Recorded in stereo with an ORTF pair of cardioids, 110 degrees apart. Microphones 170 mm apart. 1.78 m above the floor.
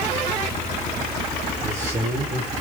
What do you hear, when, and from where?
1.6 s a man speaking: 15° right, 5 m